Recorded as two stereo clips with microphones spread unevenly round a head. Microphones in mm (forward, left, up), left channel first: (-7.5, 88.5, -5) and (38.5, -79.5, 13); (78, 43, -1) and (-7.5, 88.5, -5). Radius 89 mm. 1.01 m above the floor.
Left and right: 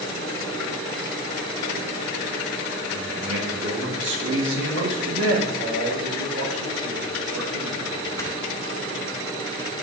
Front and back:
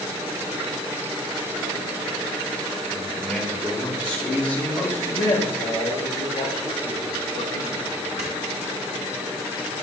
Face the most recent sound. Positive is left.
turn(degrees=180)